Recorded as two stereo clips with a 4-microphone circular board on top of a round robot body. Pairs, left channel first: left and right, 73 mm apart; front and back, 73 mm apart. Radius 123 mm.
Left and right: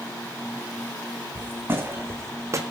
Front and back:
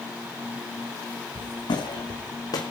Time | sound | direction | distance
1.4 | footsteps | 25° right | 3 m